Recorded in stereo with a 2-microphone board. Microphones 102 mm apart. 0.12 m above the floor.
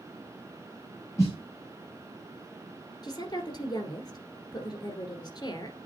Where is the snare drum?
30° left (ahead or behind), 3.5 m.